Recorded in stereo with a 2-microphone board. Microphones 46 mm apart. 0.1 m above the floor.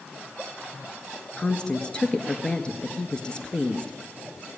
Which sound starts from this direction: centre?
A woman speaking, at 1.4 s.